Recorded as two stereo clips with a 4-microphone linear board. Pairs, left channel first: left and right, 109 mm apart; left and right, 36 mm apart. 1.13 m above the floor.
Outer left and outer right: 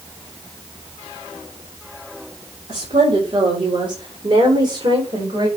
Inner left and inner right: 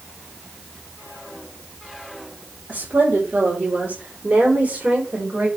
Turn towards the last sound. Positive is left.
turn(degrees=-50)  # may be behind; listen again after turning